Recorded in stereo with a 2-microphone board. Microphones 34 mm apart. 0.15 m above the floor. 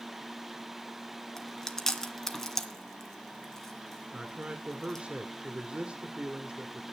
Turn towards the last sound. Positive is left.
turn(degrees=-35)  # may be behind; listen again after turning